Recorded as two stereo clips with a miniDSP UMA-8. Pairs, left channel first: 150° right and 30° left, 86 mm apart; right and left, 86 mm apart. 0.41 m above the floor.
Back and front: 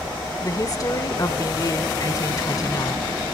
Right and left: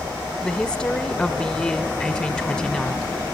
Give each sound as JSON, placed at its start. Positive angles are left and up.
{"t": 0.4, "sound": "a woman speaking", "azimuth_deg": -165, "distance_m": 1.2}